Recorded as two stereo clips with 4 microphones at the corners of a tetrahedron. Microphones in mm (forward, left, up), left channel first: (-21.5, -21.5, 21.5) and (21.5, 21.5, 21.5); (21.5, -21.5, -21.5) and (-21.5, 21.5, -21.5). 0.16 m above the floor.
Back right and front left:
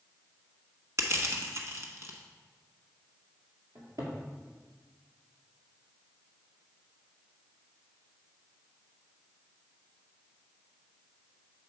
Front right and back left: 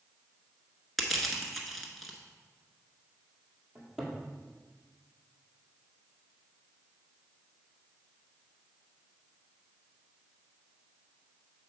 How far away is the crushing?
About 1.0 m.